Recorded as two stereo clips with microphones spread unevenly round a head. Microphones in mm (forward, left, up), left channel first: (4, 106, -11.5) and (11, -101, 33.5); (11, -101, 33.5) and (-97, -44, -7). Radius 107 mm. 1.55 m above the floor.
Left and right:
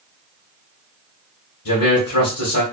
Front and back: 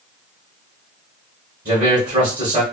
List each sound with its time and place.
1.6 s a man speaking: 105° left, 1.0 m